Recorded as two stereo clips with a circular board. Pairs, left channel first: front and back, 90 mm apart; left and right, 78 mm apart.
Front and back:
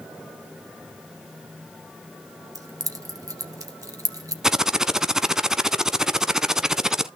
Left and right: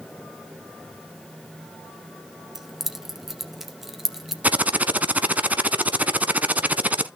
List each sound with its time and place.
2.5 s keys jangling: 170° right, 1.3 m
4.4 s typing on a keyboard: 110° right, 0.8 m